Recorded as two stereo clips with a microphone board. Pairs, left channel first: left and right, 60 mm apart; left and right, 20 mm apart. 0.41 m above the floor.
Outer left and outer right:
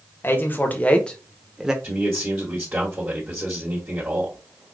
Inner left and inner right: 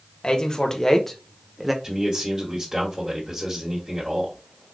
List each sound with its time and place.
0.2 s a man speaking: 40° left (ahead or behind), 1.2 m; by 1.7 s 10° right (ahead or behind), 0.8 m
1.8 s a man speaking: 35° right (ahead or behind), 1.5 m